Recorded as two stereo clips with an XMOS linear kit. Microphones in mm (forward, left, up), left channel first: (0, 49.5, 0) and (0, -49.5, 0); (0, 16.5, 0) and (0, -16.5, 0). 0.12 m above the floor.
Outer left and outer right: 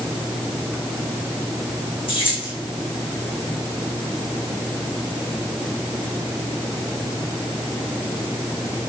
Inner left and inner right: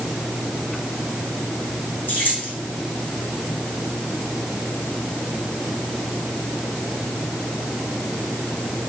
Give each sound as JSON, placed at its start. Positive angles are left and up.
{"t": 2.1, "sound": "keys jangling", "side_deg": 60, "distance_m": 5.5}